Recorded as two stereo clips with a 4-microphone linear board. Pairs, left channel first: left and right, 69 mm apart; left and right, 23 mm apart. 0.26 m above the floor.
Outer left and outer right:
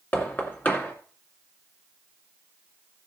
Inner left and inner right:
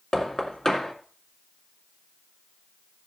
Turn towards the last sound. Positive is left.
turn(degrees=25)  # may be behind; listen again after turning